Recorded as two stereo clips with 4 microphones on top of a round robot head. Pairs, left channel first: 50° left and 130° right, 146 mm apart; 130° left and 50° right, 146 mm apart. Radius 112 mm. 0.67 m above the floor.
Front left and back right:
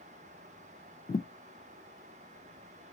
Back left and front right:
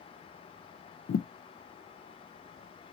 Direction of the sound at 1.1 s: 110° left.